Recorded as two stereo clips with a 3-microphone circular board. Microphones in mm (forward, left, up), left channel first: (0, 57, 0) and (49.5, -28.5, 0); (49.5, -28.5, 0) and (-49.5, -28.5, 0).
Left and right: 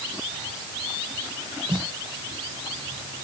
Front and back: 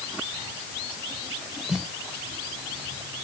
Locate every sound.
1.7 s a snare drum: 95° right